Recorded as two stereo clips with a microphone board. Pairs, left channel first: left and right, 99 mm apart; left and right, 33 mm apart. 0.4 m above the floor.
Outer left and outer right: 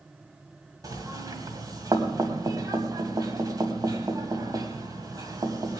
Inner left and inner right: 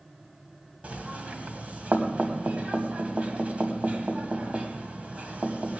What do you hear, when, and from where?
0.8 s knocking: 40° right (ahead or behind), 1.9 m